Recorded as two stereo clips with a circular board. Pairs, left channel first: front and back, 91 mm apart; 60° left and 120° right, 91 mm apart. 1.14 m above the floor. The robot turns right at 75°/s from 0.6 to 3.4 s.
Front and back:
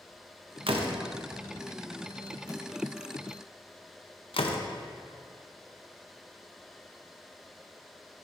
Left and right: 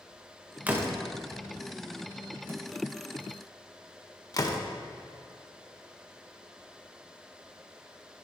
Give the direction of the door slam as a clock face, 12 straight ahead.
6 o'clock.